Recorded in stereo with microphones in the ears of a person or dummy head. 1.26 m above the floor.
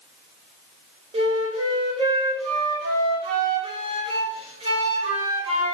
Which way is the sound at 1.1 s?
25° right (ahead or behind).